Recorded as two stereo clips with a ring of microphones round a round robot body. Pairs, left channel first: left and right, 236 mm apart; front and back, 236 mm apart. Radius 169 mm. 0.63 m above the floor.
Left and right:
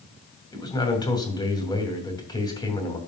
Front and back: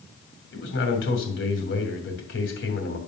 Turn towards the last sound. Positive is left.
turn(degrees=20)